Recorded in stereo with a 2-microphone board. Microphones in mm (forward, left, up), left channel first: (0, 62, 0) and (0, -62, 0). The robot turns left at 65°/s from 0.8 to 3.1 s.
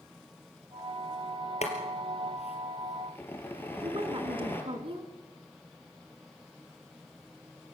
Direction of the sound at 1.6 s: 65° left (ahead or behind).